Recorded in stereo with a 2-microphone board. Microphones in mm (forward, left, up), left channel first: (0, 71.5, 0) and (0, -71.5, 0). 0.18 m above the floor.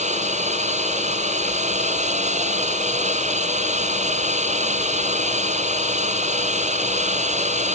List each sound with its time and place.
0.0 s a drone: 55° right (ahead or behind)